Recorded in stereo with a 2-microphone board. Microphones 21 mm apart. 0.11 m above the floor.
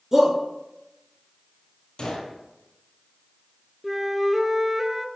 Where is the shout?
20° right (ahead or behind), 1.8 m.